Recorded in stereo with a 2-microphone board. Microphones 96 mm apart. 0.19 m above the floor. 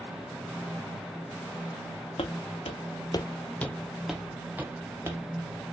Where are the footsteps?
80° left, 0.7 m; by 5.2 s 25° right (ahead or behind), 1.2 m.